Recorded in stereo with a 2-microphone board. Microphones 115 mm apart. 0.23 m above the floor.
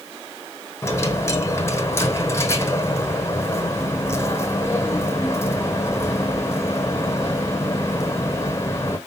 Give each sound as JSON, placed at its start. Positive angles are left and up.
{"t": 0.8, "sound": "a dropped coin", "side_deg": 25, "distance_m": 1.1}